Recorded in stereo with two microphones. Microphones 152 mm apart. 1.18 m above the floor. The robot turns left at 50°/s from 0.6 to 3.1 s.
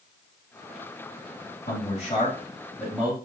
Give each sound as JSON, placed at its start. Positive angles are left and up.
{"t": 1.7, "sound": "a man speaking", "azimuth_deg": 65, "distance_m": 2.5}